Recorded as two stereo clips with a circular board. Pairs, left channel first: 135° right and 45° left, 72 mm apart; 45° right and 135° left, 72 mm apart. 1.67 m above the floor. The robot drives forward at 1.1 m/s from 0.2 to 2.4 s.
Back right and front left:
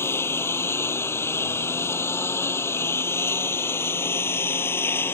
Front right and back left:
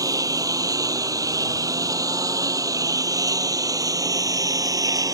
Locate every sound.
0.0 s a lawn mower: 170° left